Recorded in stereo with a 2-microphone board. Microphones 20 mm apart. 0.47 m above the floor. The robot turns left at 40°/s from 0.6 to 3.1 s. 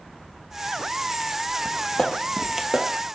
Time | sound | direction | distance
1.6 | footsteps | 50° left (ahead or behind) | 1.0 m